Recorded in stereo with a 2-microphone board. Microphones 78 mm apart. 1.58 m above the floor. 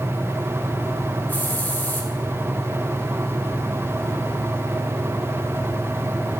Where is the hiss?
25° left (ahead or behind), 1.6 m.